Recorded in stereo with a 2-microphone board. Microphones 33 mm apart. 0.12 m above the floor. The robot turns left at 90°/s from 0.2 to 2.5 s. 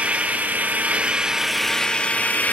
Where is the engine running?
60° right, 1.0 m; by 2.5 s 95° left, 1.0 m.